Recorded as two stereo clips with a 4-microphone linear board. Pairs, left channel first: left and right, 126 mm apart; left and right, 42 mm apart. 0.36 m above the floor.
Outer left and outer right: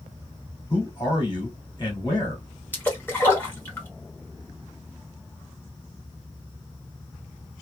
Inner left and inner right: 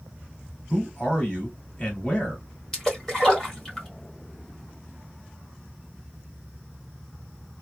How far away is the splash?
About 1.4 m.